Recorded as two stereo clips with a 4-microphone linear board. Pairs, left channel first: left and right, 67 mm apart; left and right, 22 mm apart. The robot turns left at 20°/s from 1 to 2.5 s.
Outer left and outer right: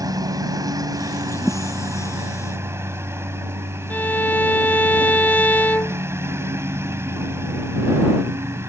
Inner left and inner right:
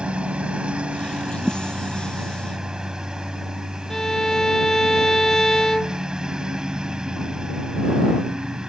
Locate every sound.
0.0 s a lawn mower: 110° right; by 8.7 s 140° right
1.4 s a thud: 15° left (ahead or behind)
3.9 s a violin: 25° left (ahead or behind)